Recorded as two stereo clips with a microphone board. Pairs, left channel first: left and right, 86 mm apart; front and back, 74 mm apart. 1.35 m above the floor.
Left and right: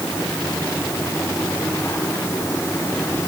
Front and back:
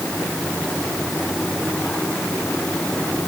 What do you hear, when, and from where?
Only background noise.